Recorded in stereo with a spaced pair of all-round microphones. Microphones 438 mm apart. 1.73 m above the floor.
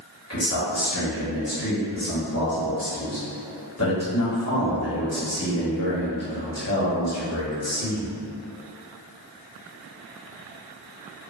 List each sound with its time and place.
0.3 s a man speaking: 35° left (ahead or behind), 1.1 m